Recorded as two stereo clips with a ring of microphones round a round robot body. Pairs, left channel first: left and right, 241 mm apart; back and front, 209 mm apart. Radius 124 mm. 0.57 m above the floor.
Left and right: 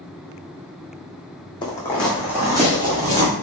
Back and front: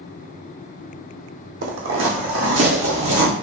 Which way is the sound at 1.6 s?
20° left.